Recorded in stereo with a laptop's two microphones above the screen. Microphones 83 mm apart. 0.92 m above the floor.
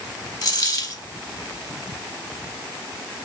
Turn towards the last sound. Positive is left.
turn(degrees=45)  # may be behind; listen again after turning